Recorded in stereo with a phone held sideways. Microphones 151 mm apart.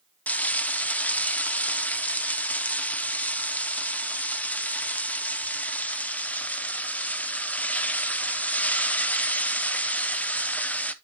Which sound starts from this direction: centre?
Frying, at 0.3 s.